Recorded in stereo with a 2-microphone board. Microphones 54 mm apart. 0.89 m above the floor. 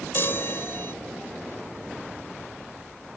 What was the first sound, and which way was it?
A chime, 50° left (ahead or behind).